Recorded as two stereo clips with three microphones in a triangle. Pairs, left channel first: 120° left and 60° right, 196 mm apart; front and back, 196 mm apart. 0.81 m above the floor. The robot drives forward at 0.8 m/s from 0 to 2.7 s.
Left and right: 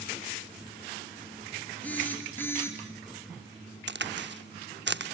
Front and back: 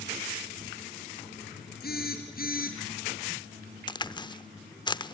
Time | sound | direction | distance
1.8 | a phone buzzing | 35° left | 5 m
3.9 | a crack | 65° right | 0.7 m